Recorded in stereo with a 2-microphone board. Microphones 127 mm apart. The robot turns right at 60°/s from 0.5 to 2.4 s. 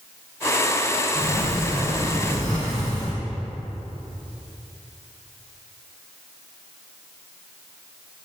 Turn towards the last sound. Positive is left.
turn(degrees=-25)